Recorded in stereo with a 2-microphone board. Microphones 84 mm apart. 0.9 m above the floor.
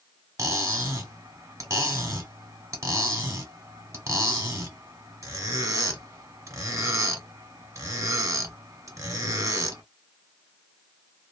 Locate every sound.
0.4 s cutlery clinking: 35° right (ahead or behind), 1.0 m